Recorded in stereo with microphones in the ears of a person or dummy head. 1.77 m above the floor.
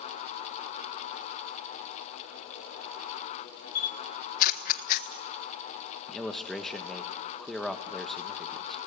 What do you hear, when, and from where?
3.8 s a camera shutter: 45° left (ahead or behind), 1.2 m
6.1 s a man speaking: centre (ahead or behind), 1.4 m